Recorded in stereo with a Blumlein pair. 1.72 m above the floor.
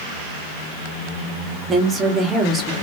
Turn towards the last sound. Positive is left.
turn(degrees=-15)